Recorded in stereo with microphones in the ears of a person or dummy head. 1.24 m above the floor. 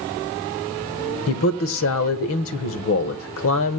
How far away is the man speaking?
About 1.1 m.